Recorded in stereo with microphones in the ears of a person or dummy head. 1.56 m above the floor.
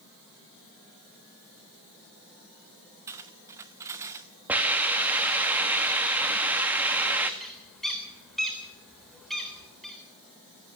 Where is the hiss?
5° right (ahead or behind), 1.9 m.